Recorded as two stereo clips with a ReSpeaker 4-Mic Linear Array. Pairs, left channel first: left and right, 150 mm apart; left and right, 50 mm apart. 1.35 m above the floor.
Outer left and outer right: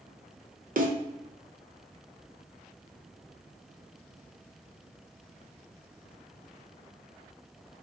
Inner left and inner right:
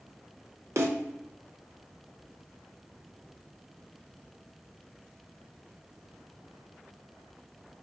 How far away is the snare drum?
About 0.7 m.